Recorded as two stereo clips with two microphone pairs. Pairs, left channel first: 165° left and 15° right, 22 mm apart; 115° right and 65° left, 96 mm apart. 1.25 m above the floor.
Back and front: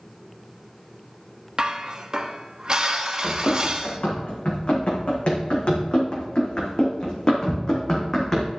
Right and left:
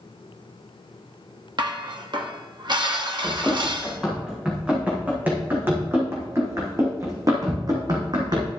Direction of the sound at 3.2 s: 155° left.